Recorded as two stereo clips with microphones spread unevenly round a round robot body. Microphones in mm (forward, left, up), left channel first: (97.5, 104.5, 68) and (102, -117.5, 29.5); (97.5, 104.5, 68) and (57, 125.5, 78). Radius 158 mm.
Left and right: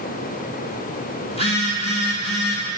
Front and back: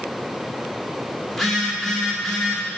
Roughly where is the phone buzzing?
Ahead left.